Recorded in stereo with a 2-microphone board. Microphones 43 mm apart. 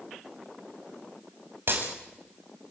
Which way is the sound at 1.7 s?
60° right (ahead or behind).